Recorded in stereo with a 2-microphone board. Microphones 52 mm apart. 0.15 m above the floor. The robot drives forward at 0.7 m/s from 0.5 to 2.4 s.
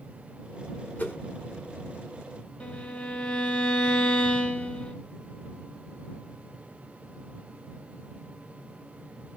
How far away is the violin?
About 1.9 m.